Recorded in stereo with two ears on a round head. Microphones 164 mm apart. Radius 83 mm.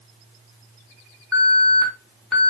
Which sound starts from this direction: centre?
An alarm, at 1.3 s.